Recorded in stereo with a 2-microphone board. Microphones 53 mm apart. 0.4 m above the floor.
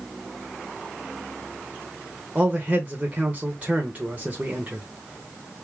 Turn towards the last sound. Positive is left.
turn(degrees=-30)  # may be behind; listen again after turning